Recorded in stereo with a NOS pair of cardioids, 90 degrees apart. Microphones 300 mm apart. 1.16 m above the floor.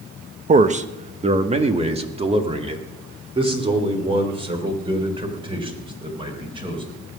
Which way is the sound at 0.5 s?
25° right.